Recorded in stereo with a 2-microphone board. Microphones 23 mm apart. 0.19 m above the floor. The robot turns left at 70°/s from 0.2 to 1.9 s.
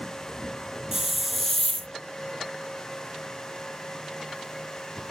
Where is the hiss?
155° right; by 1.9 s 135° left.